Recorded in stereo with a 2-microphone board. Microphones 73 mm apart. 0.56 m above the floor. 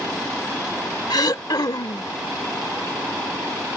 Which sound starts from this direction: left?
Throat clearing, at 1.1 s.